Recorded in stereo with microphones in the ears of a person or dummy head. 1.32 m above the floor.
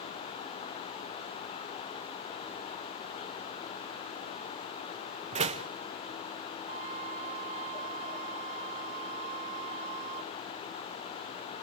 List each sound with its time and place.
5.3 s a door slam: 40° right (ahead or behind), 1.1 m
6.7 s a flute: 30° right (ahead or behind), 1.1 m